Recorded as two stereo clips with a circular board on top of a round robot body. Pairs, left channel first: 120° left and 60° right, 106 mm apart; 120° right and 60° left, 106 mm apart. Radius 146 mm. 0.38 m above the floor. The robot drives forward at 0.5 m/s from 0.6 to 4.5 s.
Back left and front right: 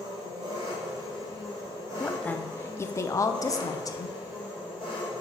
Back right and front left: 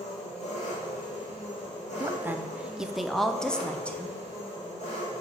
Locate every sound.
0.0 s an engine running: 110° right, 2.5 m; by 5.2 s 140° right, 3.5 m
2.0 s a woman speaking: 50° left, 0.8 m; by 4.2 s 165° left, 1.2 m